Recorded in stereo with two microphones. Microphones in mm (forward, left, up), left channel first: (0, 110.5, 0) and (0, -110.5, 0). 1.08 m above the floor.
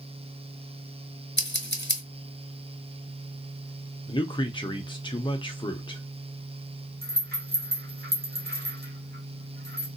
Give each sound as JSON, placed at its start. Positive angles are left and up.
{"t": 1.4, "sound": "scissors", "side_deg": 55, "distance_m": 1.0}
{"t": 4.1, "sound": "a man speaking", "side_deg": 20, "distance_m": 0.7}
{"t": 7.0, "sound": "a rattle", "side_deg": -45, "distance_m": 1.4}